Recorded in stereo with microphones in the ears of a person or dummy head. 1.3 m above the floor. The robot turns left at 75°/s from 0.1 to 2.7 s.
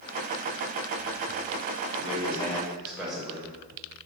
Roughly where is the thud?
No thud in this recording.